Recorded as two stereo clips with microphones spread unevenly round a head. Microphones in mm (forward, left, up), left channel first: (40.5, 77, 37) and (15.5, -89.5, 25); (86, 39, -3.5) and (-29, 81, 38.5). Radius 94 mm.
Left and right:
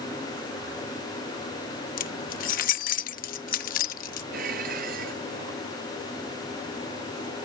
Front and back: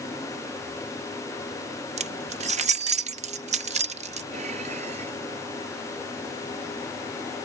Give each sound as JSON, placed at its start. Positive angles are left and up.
{"t": 2.0, "sound": "keys jangling", "azimuth_deg": 125}
{"t": 4.3, "sound": "dishes clattering", "azimuth_deg": -145}